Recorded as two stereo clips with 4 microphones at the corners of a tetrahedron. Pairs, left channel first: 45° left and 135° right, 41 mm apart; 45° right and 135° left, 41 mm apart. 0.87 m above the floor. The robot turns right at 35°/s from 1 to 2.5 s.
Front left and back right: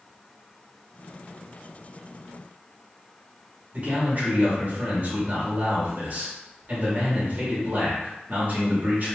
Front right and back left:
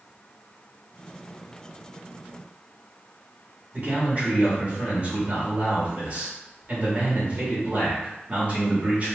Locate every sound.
3.7 s a man speaking: 175° right, 1.7 m